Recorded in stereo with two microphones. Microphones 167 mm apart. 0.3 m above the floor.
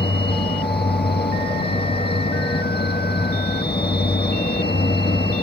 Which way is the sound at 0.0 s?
70° left (ahead or behind).